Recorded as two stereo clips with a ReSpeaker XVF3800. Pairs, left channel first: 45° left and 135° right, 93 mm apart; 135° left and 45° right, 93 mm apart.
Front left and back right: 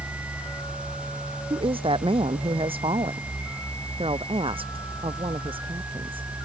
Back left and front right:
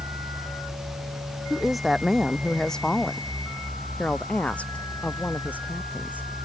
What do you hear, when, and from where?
1.5 s a woman speaking: 130° right; by 6.3 s 155° right